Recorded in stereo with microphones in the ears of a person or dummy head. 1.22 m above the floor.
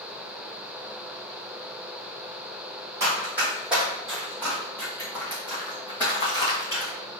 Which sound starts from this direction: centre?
Running footsteps, at 3.0 s.